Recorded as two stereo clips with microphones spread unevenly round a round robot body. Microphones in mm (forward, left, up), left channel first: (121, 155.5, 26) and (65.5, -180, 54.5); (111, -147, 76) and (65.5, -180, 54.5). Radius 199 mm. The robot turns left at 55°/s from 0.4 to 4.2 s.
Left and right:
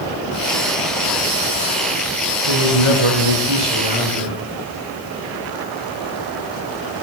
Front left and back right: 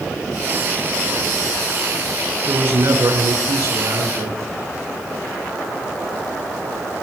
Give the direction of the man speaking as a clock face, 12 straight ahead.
3 o'clock.